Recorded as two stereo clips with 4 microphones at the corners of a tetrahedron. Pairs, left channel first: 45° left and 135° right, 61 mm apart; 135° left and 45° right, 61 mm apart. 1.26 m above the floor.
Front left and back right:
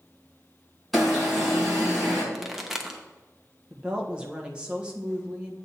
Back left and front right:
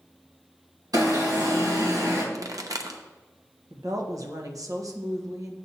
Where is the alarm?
45° right, 2.5 m.